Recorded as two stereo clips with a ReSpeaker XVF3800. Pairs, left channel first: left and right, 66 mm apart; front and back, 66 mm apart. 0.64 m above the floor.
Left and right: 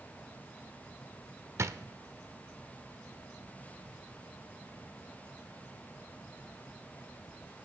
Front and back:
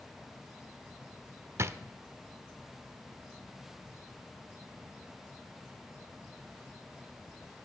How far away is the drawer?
About 0.6 m.